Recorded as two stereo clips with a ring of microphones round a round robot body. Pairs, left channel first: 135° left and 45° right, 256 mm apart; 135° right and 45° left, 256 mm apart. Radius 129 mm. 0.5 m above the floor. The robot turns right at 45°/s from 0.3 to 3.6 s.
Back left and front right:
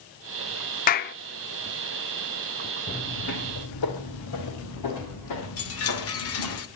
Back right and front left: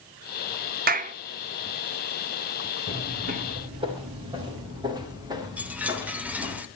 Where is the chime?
130° left, 1.9 m.